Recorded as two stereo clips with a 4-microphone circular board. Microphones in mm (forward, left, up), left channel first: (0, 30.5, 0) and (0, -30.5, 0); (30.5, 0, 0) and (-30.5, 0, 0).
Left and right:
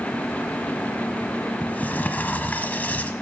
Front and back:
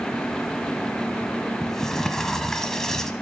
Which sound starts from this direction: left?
A sliding door, at 1.6 s.